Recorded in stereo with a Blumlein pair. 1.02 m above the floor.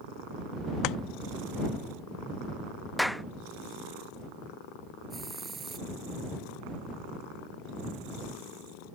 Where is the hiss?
15° right.